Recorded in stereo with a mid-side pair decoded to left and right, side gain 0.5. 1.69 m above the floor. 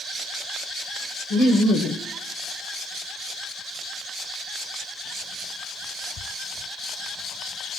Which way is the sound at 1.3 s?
55° left.